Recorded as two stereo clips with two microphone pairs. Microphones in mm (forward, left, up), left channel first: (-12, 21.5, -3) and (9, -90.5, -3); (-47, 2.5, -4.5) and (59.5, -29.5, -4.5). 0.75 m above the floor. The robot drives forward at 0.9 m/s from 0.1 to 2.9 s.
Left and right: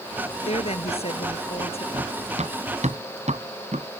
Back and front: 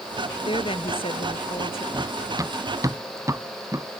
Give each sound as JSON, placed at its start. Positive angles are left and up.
{"t": 0.5, "sound": "a woman speaking", "azimuth_deg": 125}
{"t": 1.9, "sound": "running footsteps", "azimuth_deg": -75}